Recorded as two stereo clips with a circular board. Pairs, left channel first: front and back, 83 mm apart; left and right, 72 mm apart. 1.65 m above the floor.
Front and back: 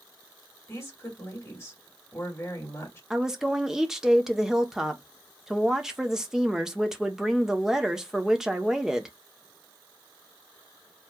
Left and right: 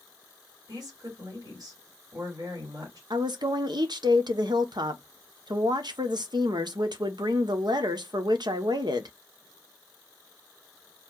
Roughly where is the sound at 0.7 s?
Ahead right.